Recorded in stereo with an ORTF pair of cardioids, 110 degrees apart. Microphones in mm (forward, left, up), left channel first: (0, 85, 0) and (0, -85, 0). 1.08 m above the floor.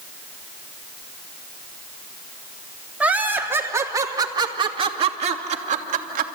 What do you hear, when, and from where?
3.0 s laughter: 10° right, 3 m; by 6.3 s 60° right, 2.5 m